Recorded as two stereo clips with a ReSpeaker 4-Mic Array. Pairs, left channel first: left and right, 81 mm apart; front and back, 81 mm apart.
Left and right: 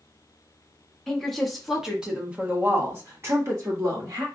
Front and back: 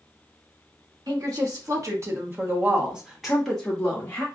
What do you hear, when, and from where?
1.1 s a woman speaking: 175° left, 1.3 m; by 4.2 s 65° right, 1.2 m